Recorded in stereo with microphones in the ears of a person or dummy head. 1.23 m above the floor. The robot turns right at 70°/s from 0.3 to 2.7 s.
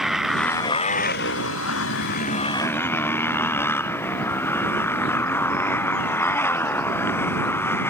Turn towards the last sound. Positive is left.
turn(degrees=165)